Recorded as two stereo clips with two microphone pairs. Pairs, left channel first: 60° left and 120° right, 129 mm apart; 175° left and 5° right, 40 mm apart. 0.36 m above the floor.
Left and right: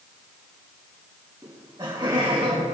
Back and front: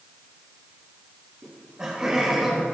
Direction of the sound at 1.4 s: 65° right.